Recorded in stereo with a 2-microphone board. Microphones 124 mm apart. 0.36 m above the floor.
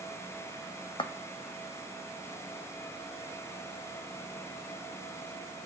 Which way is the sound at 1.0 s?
45° left (ahead or behind).